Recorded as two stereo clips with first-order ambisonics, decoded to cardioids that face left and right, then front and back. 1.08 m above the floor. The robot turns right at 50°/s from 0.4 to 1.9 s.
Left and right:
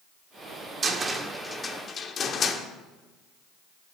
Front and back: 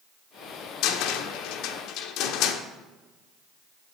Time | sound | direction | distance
0.8 | a cupboard door | 25° right | 1.2 m